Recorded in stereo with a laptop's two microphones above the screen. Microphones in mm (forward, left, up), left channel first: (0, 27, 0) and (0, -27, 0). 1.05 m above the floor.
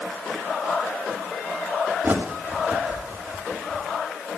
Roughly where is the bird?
Right.